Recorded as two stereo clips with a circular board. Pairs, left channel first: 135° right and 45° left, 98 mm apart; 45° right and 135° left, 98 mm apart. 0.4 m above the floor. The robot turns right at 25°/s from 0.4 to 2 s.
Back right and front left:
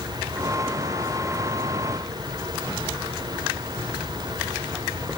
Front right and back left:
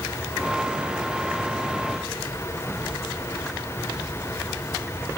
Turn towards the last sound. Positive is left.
No sound to turn to.